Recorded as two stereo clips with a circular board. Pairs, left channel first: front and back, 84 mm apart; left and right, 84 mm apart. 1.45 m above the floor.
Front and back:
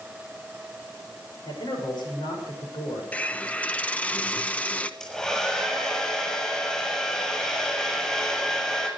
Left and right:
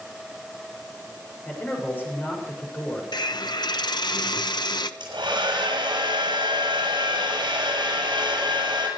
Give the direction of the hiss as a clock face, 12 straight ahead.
10 o'clock.